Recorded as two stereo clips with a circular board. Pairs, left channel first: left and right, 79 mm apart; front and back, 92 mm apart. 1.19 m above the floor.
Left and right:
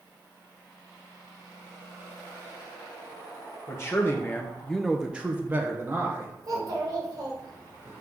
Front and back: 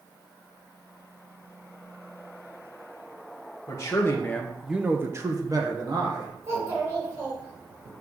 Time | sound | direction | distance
3.7 | a man speaking | 45° left | 1.1 m
6.4 | a child speaking | 125° right | 2.5 m